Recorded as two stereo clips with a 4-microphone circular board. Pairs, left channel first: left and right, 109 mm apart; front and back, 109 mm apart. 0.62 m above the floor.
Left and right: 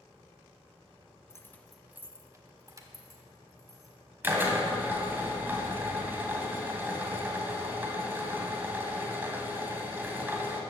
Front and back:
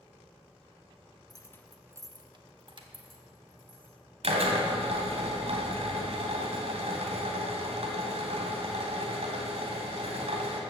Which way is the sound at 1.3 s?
35° left.